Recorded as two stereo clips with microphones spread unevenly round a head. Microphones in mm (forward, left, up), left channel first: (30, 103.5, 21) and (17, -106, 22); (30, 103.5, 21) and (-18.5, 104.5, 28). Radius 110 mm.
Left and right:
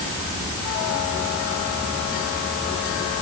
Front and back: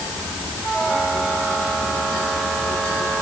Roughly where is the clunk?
No clunk in this recording.